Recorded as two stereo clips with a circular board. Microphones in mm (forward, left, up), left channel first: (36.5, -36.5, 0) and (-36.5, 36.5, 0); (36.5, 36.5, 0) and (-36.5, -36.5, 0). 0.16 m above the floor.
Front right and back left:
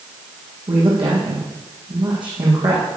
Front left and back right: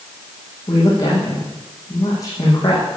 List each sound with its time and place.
0.7 s a woman speaking: 100° left, 8.5 m